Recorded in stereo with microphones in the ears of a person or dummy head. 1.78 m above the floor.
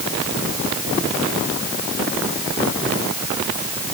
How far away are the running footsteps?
I don't hear running footsteps.